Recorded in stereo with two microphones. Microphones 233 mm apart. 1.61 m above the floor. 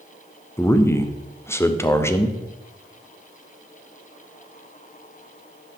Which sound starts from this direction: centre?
A man speaking, at 0.6 s.